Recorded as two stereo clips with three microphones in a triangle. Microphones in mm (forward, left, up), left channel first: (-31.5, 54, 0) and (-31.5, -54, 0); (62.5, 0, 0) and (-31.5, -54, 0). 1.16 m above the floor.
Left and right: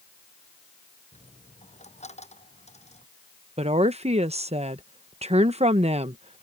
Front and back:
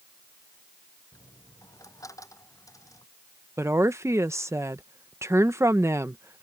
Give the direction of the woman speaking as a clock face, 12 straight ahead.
3 o'clock.